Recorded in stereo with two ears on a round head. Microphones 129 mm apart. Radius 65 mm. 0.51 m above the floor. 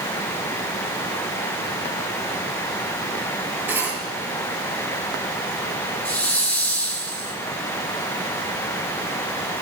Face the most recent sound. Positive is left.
turn(degrees=10)  # may be behind; listen again after turning